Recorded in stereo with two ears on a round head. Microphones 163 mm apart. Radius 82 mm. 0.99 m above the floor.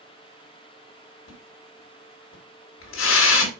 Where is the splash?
90° left, 3 m.